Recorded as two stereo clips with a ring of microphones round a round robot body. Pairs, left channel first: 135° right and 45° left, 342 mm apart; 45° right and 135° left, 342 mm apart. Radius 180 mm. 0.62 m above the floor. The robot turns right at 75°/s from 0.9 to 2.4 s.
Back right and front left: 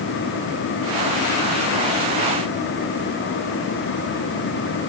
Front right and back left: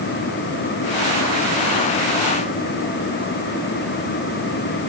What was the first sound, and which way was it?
Only background noise.